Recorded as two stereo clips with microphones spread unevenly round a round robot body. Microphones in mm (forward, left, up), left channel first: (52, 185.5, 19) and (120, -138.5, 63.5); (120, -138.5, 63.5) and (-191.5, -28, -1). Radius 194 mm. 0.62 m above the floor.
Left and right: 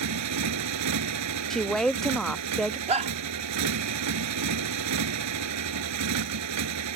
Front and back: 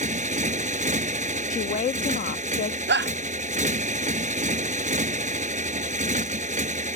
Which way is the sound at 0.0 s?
130° right.